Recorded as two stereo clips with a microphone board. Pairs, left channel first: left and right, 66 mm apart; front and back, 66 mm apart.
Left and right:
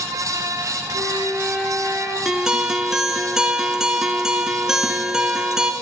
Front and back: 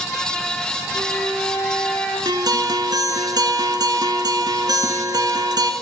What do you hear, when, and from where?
0.9 s a flute: 50° right, 2 m
2.2 s a guitar: 170° right, 0.8 m